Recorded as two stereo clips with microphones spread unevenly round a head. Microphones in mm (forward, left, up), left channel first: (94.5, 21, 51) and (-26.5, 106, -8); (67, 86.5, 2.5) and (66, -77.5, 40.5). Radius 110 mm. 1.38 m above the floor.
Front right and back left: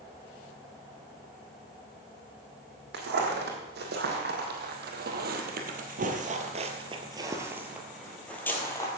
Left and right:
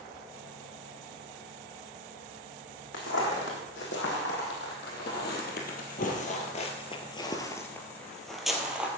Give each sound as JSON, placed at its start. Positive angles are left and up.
{"t": 2.9, "sound": "footsteps", "azimuth_deg": 130, "distance_m": 3.0}